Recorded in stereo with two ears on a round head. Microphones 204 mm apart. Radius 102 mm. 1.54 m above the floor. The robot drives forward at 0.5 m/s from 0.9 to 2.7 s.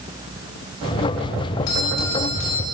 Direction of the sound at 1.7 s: 85° left.